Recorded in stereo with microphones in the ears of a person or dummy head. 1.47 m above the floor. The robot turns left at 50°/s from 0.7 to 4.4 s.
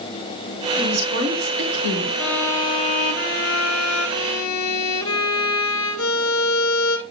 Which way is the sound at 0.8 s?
25° right.